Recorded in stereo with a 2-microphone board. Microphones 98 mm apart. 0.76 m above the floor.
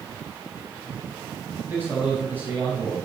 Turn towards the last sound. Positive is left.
turn(degrees=-20)  # may be behind; listen again after turning